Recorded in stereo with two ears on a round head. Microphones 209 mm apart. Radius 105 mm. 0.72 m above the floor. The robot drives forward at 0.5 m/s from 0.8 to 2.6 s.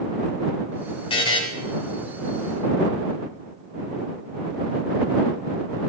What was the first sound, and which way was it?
A buzzer, 25° left (ahead or behind).